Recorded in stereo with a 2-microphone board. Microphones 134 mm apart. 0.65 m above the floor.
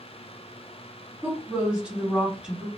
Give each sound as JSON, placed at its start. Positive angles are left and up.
{"t": 1.2, "sound": "a woman speaking", "side_deg": -10, "distance_m": 1.2}